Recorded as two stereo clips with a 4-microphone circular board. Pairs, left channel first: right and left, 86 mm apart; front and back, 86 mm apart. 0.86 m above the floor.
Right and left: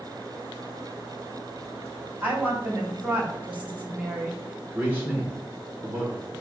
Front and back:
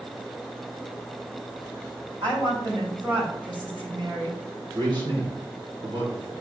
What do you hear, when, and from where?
2.2 s a woman speaking: 160° left, 4 m
4.8 s a man speaking: 155° left, 2.5 m